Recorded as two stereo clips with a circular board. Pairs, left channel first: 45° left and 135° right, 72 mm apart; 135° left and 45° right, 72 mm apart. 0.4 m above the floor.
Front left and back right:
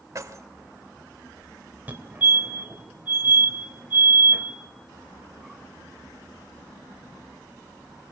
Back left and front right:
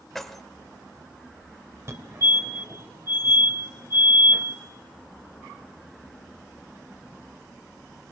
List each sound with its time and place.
0.1 s keys jangling: 140° right, 1.1 m
1.9 s a fire alarm: 75° right, 2.5 m